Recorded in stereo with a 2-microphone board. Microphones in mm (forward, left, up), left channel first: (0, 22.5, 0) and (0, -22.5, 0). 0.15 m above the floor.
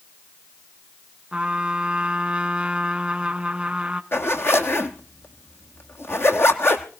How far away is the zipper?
About 1.4 m.